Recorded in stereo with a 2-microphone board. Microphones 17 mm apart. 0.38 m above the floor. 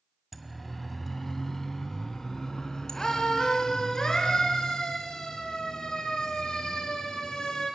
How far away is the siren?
About 2.5 m.